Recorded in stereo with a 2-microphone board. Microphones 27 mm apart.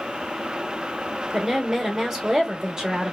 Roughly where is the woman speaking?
Right.